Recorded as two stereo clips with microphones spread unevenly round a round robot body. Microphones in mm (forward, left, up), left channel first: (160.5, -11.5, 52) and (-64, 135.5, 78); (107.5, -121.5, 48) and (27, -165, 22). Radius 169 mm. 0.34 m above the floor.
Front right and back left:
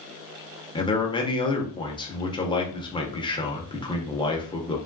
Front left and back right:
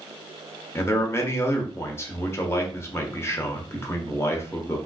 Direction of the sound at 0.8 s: 30° right.